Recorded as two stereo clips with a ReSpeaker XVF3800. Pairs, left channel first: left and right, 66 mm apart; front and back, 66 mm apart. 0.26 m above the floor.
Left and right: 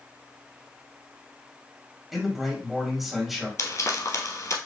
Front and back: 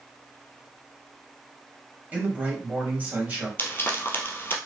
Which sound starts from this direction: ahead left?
Frying, at 3.6 s.